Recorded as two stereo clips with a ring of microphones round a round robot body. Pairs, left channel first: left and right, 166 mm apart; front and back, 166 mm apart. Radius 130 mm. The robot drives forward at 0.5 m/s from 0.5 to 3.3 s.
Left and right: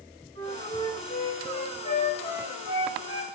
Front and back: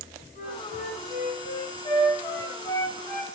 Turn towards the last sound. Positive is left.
turn(degrees=85)